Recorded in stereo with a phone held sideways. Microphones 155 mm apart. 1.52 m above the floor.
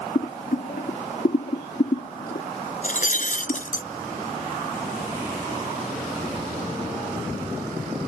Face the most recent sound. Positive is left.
turn(degrees=55)  # may be behind; listen again after turning